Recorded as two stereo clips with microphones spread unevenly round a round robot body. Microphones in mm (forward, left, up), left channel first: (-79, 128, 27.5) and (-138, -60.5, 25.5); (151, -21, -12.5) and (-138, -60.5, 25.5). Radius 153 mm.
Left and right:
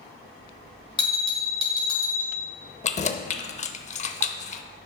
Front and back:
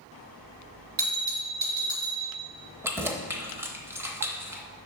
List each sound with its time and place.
1.0 s a bell: 135° left, 3.5 m
2.8 s keys jangling: 100° left, 0.7 m